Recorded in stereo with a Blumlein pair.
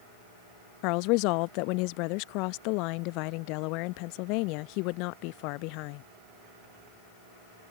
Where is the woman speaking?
45° left.